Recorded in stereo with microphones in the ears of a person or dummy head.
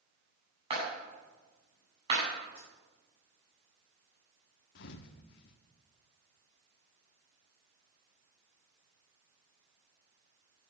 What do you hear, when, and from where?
0.7 s a clap: 35° right (ahead or behind), 9 m
2.5 s a dropped coin: 35° right (ahead or behind), 10 m
4.8 s a thud: 60° left (ahead or behind), 1.2 m